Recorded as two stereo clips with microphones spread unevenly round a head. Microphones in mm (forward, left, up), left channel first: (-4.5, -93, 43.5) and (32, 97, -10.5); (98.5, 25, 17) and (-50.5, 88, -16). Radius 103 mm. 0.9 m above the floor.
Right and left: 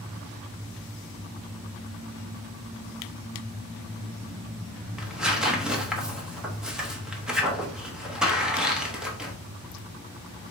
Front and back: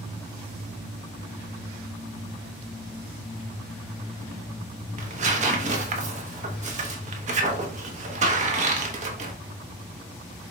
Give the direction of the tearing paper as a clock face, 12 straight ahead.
7 o'clock.